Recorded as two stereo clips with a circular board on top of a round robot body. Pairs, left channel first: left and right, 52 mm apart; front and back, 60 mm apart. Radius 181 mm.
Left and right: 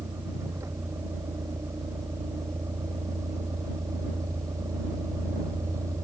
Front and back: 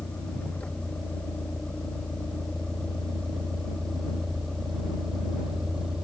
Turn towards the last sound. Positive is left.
turn(degrees=-100)